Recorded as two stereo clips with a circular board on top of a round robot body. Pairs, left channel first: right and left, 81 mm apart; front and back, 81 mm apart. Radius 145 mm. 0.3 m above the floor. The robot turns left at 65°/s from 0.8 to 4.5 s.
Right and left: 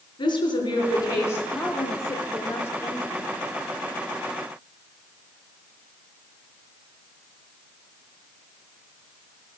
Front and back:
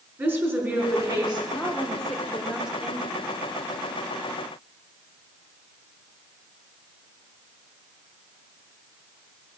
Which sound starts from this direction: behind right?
A woman speaking, at 0.2 s.